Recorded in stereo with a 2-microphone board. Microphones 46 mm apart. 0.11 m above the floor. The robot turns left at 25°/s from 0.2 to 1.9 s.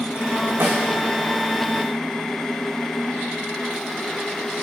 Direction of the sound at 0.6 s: 70° right (ahead or behind).